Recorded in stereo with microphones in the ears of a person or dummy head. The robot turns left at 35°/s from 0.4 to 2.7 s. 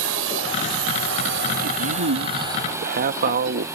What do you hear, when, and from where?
0.0 s a drone: 85° right; by 3.8 s 15° right (ahead or behind)
1.6 s a man speaking: 90° right; by 3.7 s 125° right